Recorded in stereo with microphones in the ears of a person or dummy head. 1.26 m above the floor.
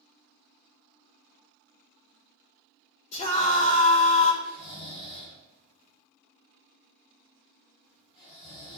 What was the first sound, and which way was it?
A scream, 40° left (ahead or behind).